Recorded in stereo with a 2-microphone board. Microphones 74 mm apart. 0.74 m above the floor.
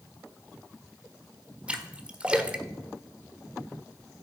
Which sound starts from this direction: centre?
A splash, at 1.7 s.